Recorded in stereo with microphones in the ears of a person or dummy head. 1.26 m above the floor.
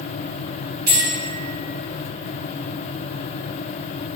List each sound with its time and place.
0.9 s a bell: 55° right (ahead or behind), 1.6 m